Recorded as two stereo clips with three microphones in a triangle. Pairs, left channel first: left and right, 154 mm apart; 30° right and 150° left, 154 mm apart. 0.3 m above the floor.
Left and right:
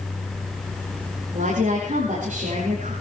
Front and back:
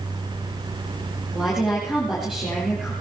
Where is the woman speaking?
125° right, 7.5 m.